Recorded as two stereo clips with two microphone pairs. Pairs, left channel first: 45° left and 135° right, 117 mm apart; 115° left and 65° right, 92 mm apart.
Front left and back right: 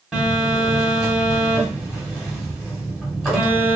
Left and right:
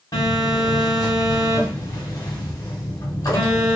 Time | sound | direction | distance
0.1 | a phone buzzing | 135° left | 1.3 m